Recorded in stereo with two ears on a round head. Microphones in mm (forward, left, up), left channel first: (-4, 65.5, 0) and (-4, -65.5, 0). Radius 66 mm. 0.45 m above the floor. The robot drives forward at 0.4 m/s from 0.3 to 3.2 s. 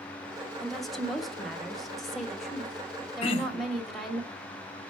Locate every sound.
0.6 s a woman speaking: centre (ahead or behind), 1.0 m
3.2 s throat clearing: 40° left (ahead or behind), 0.6 m